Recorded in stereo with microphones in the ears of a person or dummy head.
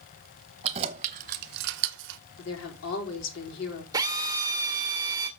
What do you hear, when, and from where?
0.6 s keys jangling: 30° right (ahead or behind), 1.1 m; by 2.2 s 60° right (ahead or behind), 0.8 m
2.4 s a woman speaking: 80° left, 4.5 m
3.9 s a drill: 20° right (ahead or behind), 1.9 m